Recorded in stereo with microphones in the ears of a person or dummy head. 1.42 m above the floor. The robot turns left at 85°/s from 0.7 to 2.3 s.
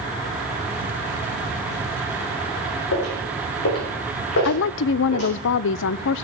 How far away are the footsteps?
About 4.5 m.